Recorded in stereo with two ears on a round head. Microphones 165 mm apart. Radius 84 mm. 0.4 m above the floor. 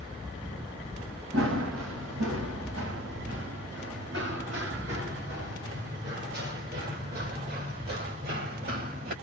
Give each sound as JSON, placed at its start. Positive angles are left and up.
{"t": 1.3, "sound": "running footsteps", "side_deg": -80, "distance_m": 4.0}